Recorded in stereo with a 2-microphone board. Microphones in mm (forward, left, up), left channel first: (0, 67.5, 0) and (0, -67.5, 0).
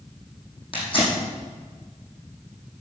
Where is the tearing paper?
45° left (ahead or behind), 6 m.